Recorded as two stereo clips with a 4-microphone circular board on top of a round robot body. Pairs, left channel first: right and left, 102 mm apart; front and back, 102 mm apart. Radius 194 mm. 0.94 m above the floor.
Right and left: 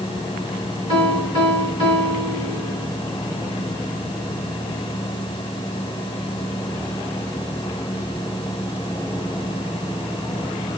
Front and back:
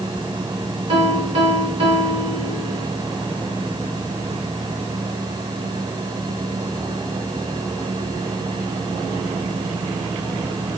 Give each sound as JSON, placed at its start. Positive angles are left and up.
{"t": 0.9, "sound": "a piano", "azimuth_deg": 135, "distance_m": 3.5}